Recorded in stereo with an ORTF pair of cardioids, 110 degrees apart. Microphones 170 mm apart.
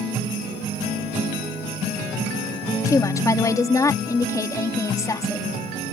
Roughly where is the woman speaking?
Ahead.